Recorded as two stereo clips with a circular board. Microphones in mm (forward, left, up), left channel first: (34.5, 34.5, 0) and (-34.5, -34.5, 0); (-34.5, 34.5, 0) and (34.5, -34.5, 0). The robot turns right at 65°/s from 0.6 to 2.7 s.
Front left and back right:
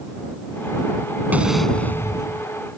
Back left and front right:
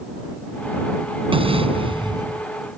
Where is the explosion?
60° right; by 2.5 s 15° left.